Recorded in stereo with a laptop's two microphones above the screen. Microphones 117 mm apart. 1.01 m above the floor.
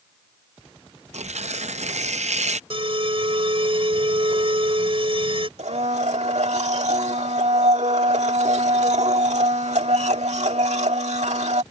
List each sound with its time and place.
1.1 s tearing paper: 85° right
2.7 s an alarm: 55° right (ahead or behind)
5.6 s a blender: 85° right